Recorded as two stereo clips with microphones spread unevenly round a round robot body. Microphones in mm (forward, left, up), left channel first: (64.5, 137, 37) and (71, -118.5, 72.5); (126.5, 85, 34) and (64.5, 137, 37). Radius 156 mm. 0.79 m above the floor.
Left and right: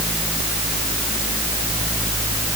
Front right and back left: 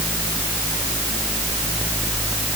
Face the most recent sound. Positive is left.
No sound to turn to.